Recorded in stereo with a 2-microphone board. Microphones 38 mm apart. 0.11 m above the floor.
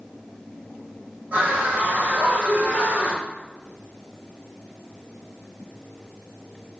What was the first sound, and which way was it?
A scream, 45° right (ahead or behind).